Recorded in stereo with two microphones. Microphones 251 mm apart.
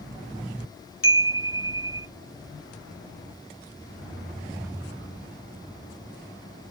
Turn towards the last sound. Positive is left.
turn(degrees=60)  # may be behind; listen again after turning